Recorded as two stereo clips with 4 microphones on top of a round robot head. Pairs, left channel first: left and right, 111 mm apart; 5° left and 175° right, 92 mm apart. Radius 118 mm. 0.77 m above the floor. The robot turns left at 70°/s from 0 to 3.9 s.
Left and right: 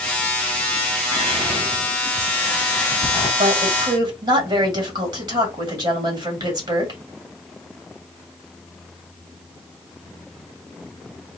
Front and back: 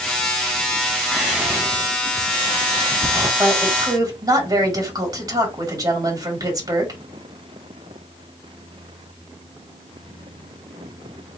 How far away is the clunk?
I don't hear a clunk.